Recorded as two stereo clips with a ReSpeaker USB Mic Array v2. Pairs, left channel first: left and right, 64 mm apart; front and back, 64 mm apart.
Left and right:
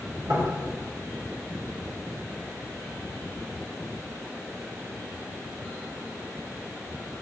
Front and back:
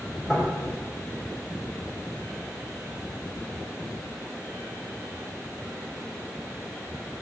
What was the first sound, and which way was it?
Knocking, 85° right.